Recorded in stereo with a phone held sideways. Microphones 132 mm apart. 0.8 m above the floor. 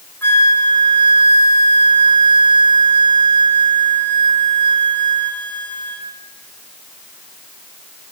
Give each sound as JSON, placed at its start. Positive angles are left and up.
{"t": 0.2, "sound": "a flute", "side_deg": 15, "distance_m": 2.5}